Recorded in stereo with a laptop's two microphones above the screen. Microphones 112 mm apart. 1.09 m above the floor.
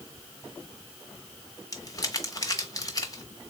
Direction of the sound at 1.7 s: 30° left (ahead or behind).